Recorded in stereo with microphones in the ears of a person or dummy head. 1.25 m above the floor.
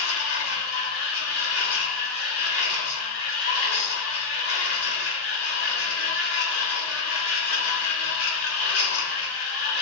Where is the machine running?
80° left, 3 m.